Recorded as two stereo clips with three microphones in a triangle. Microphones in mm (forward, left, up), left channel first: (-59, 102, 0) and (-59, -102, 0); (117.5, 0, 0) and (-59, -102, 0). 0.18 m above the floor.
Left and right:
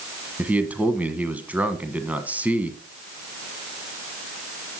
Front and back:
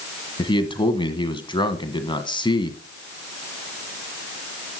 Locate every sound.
0.4 s a man speaking: 15° right, 1.3 m